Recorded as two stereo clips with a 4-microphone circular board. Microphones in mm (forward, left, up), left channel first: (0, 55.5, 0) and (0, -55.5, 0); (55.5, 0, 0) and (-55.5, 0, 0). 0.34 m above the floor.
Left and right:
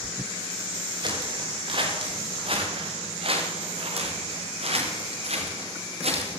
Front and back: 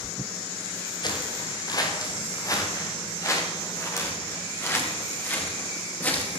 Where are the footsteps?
50° right, 6.5 m; by 6.3 s 75° right, 10 m.